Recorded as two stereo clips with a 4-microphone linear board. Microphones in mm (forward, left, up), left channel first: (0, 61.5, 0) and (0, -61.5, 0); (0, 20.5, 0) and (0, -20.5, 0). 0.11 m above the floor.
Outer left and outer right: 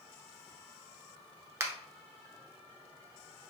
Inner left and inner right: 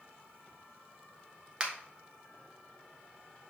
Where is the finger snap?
25° right (ahead or behind), 0.9 m.